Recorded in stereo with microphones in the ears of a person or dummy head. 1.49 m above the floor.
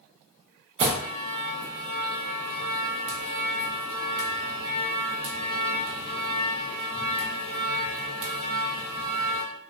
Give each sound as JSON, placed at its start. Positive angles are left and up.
{"t": 0.8, "sound": "an alarm", "side_deg": -40, "distance_m": 0.6}